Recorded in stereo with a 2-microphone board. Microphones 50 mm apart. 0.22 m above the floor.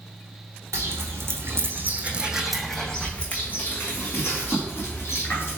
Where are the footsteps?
75° right (ahead or behind), 1.0 m; by 5.6 s 50° left (ahead or behind), 1.9 m.